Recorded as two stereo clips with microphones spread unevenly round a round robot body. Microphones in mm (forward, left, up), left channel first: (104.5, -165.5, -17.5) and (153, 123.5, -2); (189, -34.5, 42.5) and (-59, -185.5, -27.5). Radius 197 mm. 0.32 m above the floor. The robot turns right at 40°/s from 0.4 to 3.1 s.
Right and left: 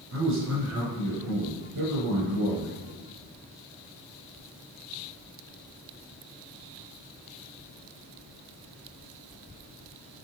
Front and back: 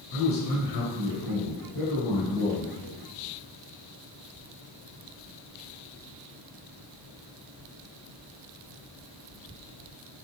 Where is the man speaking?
35° left, 4 m; by 2.8 s 130° left, 4 m.